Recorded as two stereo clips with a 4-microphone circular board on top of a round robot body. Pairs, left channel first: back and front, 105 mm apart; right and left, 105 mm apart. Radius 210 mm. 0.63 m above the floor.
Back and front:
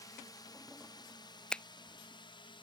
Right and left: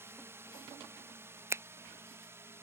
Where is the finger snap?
110° left.